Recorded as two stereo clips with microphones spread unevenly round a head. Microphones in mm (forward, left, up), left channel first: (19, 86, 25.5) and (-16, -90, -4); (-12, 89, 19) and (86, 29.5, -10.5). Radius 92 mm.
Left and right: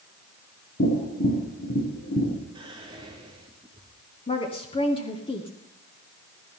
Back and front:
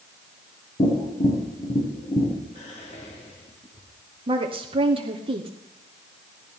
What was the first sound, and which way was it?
Tapping, 115° left.